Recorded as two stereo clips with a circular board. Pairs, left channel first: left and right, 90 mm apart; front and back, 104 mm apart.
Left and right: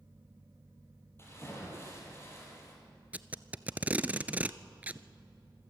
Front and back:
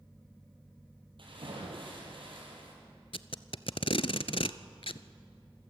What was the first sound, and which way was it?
A splash, 150° left.